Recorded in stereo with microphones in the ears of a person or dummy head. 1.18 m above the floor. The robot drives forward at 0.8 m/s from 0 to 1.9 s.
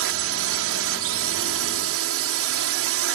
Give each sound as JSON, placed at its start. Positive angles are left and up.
{"t": 0.0, "sound": "a drone", "side_deg": -70}